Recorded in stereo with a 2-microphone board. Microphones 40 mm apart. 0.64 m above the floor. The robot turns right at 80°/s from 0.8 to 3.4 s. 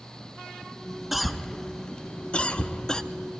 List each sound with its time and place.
1.1 s a cough: 5° right (ahead or behind), 0.5 m; by 3.0 s 15° left (ahead or behind), 0.5 m